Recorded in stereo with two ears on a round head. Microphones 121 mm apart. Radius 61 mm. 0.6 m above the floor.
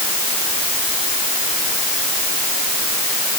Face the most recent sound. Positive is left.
No sound to turn to.